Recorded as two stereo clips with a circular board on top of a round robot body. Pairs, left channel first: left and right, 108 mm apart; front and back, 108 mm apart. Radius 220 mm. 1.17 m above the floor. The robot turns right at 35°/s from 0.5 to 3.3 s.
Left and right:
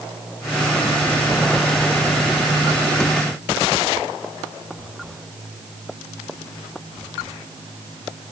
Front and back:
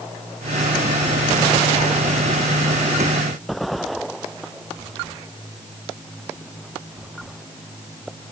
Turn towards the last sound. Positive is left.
No sound to turn to.